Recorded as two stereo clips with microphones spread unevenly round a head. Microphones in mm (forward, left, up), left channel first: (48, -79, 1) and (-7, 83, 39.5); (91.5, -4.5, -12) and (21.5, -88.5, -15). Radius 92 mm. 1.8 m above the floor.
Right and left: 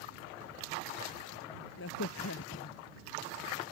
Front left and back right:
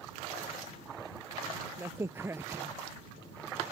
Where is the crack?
60° right.